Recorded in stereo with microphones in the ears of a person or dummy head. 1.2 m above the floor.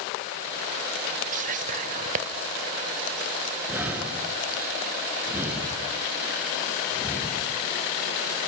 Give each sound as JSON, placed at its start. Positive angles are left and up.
{"t": 1.3, "sound": "whispering", "side_deg": -40, "distance_m": 1.0}
{"t": 3.7, "sound": "breathing", "side_deg": -10, "distance_m": 3.0}